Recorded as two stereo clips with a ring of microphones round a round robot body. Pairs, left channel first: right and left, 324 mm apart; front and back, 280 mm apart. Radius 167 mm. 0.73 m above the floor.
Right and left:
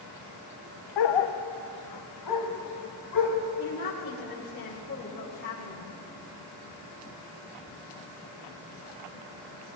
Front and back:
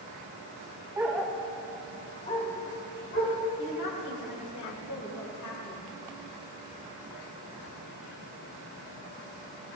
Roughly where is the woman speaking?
Ahead right.